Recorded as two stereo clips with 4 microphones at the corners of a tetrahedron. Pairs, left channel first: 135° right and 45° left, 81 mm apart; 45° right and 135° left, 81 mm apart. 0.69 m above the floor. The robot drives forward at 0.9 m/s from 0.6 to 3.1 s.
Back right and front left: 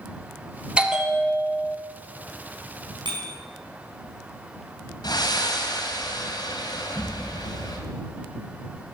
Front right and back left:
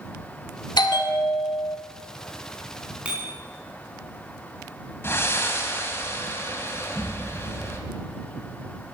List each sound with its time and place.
0.8 s a bell: 30° right, 1.6 m; by 1.8 s 65° right, 1.0 m
3.0 s a bicycle bell: 60° left, 4.5 m
5.0 s breathing: 105° right, 2 m